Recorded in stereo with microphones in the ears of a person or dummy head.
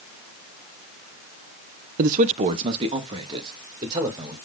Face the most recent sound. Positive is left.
turn(degrees=-20)  # may be behind; listen again after turning